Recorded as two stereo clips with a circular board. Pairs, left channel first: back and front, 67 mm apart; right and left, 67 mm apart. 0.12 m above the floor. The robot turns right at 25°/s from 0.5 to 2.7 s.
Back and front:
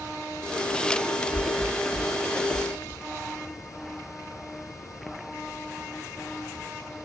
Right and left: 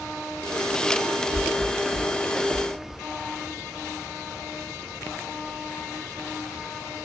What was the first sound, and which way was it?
A thud, 130° left.